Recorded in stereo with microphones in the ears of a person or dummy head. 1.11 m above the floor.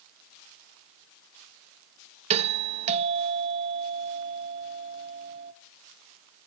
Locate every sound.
2.3 s a doorbell: 35° right (ahead or behind), 0.6 m